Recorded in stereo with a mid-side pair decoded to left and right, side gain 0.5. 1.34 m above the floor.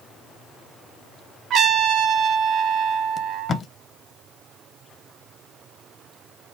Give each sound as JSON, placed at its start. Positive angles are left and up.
{"t": 1.5, "sound": "a trumpet", "azimuth_deg": -60, "distance_m": 1.1}
{"t": 3.2, "sound": "tape being pulled", "azimuth_deg": 40, "distance_m": 0.8}